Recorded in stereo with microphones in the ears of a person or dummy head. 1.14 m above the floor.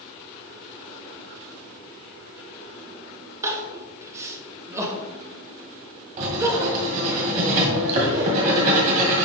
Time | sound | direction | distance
3.4 | crying | 20° right (ahead or behind) | 1.1 m
6.2 | writing | 50° right (ahead or behind) | 1.7 m